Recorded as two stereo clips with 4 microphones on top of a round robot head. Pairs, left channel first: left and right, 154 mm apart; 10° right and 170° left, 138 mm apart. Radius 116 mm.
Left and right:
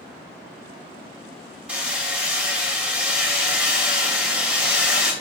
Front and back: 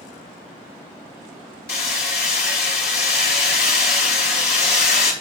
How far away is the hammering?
About 2.5 m.